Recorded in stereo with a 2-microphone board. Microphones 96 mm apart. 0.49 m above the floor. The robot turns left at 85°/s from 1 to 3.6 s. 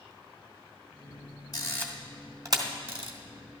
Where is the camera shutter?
45° left (ahead or behind), 1.0 m; by 3.1 s 85° right, 1.0 m.